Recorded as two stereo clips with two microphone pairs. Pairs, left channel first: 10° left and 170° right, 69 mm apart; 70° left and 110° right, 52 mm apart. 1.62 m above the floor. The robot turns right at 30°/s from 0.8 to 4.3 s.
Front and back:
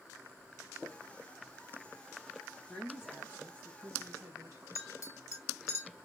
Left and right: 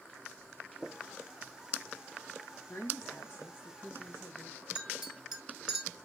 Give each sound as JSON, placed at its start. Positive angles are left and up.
{"t": 2.7, "sound": "a woman speaking", "azimuth_deg": 105, "distance_m": 1.8}
{"t": 4.8, "sound": "a clink", "azimuth_deg": -25, "distance_m": 1.7}